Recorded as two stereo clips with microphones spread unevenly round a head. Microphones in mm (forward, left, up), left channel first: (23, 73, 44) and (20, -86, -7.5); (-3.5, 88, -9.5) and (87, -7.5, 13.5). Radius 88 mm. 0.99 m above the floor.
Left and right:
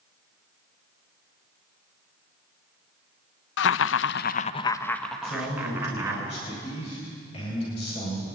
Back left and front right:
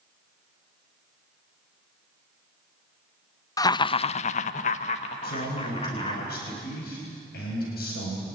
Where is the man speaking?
145° left, 5 m.